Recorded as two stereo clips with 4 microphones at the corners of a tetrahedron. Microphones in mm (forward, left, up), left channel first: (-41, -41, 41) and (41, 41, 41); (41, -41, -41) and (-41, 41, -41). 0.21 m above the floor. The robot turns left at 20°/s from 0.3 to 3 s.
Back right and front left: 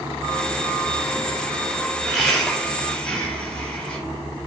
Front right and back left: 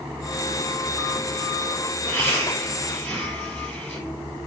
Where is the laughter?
55° right, 1.4 m; by 4.0 s 75° right, 1.4 m.